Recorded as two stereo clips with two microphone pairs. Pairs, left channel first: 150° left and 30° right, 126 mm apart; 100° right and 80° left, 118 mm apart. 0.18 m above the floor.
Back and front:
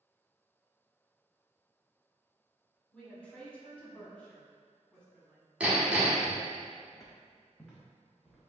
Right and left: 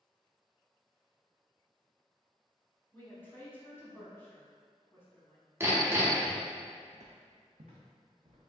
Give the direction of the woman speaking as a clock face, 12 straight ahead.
5 o'clock.